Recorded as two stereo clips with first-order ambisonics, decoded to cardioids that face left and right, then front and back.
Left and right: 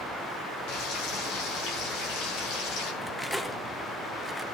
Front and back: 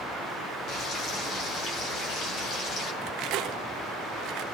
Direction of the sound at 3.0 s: 175° left.